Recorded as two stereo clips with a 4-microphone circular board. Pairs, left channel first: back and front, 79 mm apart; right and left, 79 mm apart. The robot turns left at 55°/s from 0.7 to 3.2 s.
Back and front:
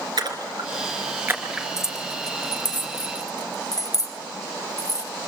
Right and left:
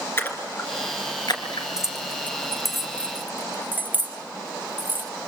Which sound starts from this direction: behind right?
Keys jangling, at 1.8 s.